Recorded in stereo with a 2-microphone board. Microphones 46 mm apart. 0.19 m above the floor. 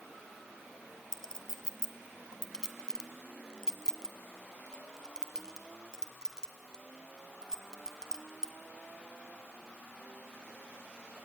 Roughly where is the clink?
Centre.